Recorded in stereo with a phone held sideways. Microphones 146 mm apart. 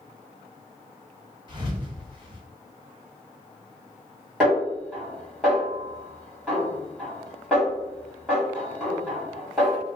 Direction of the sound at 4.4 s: 5° right (ahead or behind).